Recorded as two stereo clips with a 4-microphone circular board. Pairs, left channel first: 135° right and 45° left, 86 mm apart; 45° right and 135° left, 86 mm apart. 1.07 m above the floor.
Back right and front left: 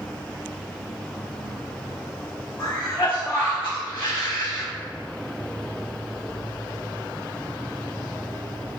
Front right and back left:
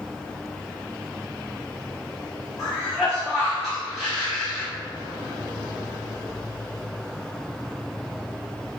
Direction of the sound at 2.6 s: 135° right.